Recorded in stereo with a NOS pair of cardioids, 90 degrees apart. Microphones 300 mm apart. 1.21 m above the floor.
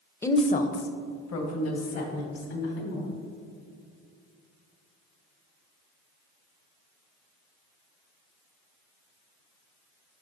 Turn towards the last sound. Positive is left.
turn(degrees=60)